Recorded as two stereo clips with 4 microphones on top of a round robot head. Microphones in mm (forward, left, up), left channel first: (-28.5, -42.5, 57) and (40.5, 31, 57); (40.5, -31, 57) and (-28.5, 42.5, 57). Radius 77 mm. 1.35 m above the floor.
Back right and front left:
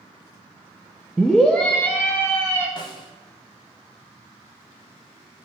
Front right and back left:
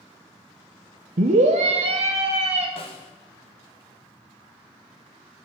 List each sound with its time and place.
1.2 s a scream: 135° left, 0.5 m; by 2.7 s 160° left, 1.4 m
2.8 s a snare drum: 85° right, 0.7 m